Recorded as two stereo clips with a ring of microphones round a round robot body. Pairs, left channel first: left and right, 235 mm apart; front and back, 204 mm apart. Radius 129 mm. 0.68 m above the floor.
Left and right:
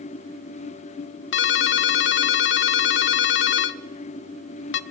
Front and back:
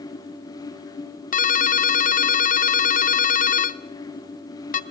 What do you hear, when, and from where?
1.3 s a ringtone: 50° left, 1.0 m